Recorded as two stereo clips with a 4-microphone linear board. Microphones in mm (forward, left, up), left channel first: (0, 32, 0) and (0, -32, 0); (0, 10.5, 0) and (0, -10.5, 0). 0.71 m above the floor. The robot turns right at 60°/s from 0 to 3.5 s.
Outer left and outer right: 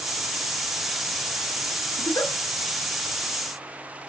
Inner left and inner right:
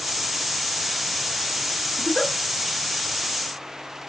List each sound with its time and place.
2.0 s a giggle: 60° left (ahead or behind), 1.3 m; by 2.3 s 75° left (ahead or behind), 1.3 m